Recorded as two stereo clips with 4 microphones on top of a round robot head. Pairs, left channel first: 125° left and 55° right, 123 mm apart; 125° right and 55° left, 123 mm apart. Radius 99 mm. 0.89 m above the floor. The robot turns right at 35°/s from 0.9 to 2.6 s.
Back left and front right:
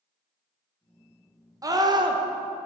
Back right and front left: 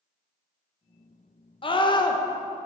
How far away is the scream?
About 1.0 m.